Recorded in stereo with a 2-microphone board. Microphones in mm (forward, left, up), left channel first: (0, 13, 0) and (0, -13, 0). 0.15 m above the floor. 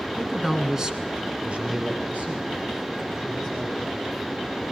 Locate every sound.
0.1 s a man speaking: 5° left (ahead or behind), 1.7 m; by 4.3 s 60° right (ahead or behind), 5 m